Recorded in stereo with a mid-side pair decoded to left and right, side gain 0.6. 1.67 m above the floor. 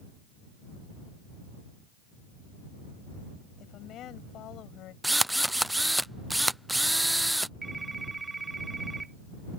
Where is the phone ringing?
20° right.